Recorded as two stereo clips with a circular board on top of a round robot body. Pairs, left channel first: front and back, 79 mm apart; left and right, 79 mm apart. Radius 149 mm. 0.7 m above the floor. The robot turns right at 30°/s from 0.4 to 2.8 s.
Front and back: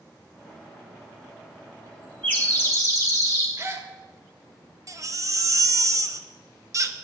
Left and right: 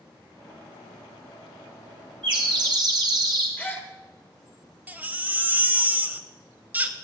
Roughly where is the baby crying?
Behind right.